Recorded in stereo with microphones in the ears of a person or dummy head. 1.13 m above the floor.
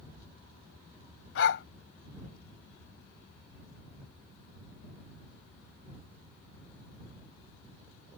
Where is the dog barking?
75° left (ahead or behind).